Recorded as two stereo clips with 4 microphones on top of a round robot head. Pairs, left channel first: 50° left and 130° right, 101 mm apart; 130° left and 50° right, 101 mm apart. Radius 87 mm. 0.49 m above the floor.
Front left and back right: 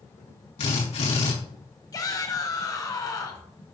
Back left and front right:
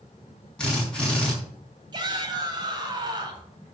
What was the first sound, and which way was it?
A drill, 50° left.